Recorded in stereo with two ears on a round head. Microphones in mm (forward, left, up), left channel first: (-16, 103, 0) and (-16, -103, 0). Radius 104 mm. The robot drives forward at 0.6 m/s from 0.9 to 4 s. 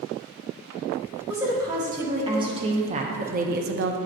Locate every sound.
1.3 s a woman speaking: 15° right (ahead or behind), 1.8 m; by 4.0 s 55° right (ahead or behind), 0.6 m